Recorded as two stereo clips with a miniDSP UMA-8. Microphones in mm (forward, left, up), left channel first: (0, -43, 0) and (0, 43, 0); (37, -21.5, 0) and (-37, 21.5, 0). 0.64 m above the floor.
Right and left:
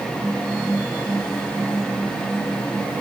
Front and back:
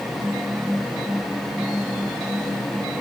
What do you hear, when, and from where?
Only background noise.